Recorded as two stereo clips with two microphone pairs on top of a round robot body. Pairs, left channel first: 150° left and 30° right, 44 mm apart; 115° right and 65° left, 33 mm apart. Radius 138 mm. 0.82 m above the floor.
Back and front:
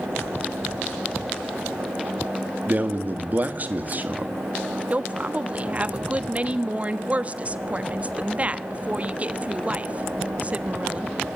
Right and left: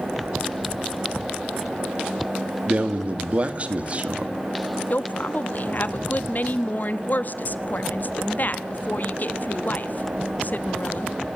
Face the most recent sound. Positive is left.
turn(degrees=-90)